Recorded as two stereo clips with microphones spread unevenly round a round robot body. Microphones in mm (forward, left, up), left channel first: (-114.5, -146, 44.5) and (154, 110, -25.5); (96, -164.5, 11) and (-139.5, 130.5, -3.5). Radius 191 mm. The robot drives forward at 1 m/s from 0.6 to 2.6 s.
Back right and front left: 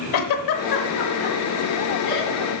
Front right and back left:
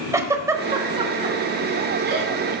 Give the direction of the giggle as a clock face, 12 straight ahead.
5 o'clock.